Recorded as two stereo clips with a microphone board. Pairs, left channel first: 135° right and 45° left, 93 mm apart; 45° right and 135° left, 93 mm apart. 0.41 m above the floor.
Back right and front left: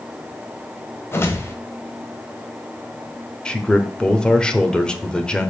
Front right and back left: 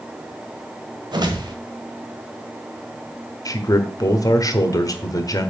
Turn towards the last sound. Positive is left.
turn(degrees=-60)